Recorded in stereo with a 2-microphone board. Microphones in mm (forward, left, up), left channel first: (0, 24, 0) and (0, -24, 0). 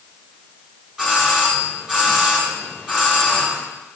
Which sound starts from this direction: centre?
A doorbell, at 1.0 s.